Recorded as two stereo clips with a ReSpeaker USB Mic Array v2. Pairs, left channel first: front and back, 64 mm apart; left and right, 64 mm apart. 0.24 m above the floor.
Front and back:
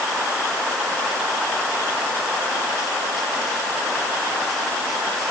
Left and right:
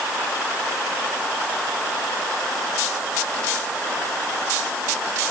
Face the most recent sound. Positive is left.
No sound to turn to.